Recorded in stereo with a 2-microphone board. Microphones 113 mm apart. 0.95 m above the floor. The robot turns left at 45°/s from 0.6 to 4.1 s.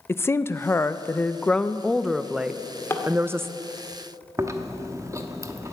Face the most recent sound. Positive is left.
turn(degrees=-30)  # may be behind; listen again after turning